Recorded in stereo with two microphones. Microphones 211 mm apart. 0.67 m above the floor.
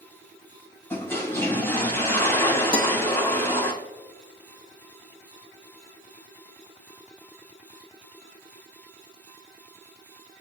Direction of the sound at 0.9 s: 10° left (ahead or behind).